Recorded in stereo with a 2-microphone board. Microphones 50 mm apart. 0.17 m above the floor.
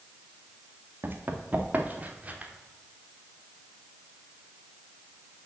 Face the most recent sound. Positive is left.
turn(degrees=-25)  # may be behind; listen again after turning